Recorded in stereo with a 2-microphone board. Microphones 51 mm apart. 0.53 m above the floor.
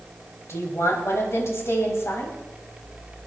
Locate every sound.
0.5 s a woman speaking: 60° left (ahead or behind), 4 m